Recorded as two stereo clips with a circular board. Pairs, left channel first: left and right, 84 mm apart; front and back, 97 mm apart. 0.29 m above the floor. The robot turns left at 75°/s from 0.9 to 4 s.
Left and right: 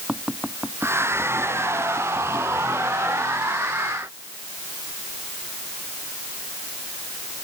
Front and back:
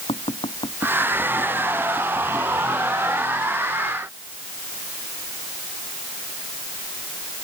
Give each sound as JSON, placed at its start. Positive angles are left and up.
{"t": 0.1, "sound": "tapping", "azimuth_deg": -10}